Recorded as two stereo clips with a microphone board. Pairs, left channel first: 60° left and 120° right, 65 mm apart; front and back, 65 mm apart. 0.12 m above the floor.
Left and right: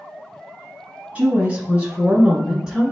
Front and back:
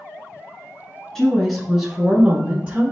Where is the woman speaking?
80° right, 1.2 m; by 2.9 s 170° left, 1.2 m.